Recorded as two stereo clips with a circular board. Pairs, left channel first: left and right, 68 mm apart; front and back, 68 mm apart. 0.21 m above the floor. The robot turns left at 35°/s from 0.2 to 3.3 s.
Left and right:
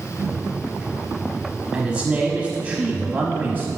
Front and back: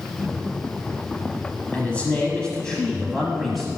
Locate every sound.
1.7 s a man speaking: 30° right, 1.0 m; by 3.8 s 85° right, 1.0 m